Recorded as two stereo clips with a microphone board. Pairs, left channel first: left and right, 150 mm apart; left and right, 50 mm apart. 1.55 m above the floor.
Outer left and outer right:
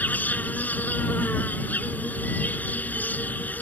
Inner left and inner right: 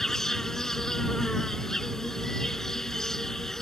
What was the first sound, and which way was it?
An insect, 10° left (ahead or behind).